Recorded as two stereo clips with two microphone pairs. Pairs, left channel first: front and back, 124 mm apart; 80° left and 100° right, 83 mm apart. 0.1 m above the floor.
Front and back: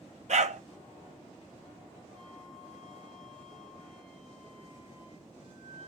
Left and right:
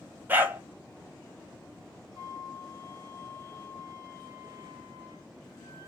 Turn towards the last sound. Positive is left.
turn(degrees=-140)